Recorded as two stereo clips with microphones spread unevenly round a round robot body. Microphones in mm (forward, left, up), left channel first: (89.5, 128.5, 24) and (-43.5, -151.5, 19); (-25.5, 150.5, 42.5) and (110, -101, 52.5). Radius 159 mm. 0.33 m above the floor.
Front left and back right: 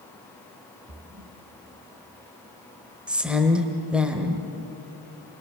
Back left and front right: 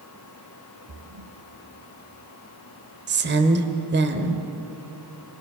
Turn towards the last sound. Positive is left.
turn(degrees=-30)